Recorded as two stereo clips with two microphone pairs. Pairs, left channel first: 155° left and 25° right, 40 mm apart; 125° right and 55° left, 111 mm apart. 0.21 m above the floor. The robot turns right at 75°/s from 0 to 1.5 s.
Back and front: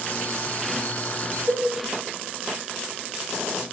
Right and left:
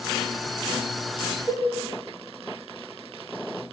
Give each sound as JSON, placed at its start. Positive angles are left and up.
{"t": 1.5, "sound": "a cowbell", "azimuth_deg": -70, "distance_m": 6.5}